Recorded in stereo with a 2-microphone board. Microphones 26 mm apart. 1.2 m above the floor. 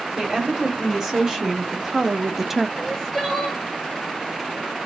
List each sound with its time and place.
0.2 s a woman speaking: 20° right (ahead or behind), 2 m; by 2.7 s 5° right (ahead or behind), 0.5 m
2.8 s crying: centre (ahead or behind), 1.2 m